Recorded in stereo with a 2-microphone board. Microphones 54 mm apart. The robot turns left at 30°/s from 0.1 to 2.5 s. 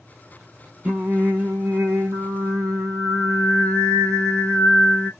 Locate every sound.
0.8 s singing: 25° right, 0.6 m; by 5.1 s 75° right, 0.6 m